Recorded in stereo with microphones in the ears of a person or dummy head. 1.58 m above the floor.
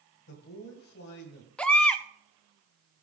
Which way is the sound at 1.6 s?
10° left (ahead or behind).